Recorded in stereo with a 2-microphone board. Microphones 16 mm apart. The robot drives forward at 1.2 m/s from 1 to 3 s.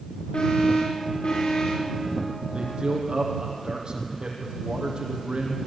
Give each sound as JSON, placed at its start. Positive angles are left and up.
{"t": 0.3, "sound": "an alarm", "side_deg": 85, "distance_m": 10.0}
{"t": 2.5, "sound": "a man speaking", "side_deg": -55, "distance_m": 4.5}